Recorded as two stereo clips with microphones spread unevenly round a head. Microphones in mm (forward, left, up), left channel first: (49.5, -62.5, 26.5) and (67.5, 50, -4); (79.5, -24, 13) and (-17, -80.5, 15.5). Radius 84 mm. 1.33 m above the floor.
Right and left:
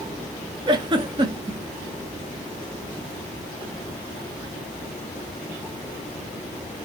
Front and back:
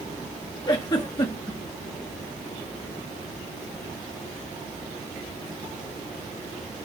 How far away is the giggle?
About 0.7 m.